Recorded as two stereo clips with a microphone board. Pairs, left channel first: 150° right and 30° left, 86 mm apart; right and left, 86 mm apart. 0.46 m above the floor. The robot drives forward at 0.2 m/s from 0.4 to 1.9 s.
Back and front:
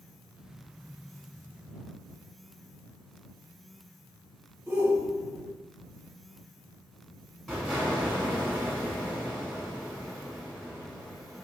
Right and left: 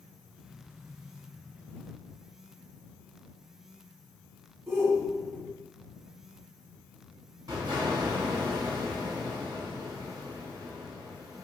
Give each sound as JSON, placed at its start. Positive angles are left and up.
{"t": 4.7, "sound": "a shout", "azimuth_deg": 80, "distance_m": 0.9}
{"t": 7.5, "sound": "an explosion", "azimuth_deg": 125, "distance_m": 0.9}